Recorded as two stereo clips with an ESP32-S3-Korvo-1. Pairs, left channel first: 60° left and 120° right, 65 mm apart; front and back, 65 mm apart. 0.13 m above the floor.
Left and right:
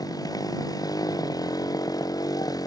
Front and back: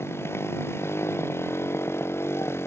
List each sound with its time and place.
0.0 s a motorcycle: 50° left